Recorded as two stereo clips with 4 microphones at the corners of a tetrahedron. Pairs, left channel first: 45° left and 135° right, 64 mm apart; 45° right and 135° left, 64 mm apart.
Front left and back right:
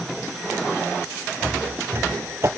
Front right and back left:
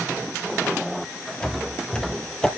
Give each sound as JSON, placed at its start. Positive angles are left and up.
{"t": 1.4, "sound": "footsteps", "azimuth_deg": -105, "distance_m": 1.6}